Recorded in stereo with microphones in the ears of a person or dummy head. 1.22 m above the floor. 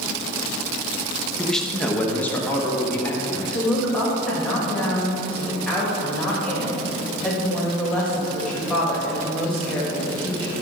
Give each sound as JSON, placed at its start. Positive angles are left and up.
{"t": 1.4, "sound": "a man speaking", "side_deg": -5, "distance_m": 0.9}
{"t": 3.5, "sound": "a woman speaking", "side_deg": 5, "distance_m": 2.0}